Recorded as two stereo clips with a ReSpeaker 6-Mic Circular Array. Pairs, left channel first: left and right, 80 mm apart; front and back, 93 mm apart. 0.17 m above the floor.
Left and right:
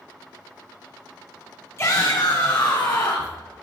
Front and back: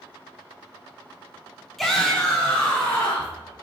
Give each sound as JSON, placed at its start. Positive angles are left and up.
{"t": 1.8, "sound": "a shout", "azimuth_deg": 85, "distance_m": 1.2}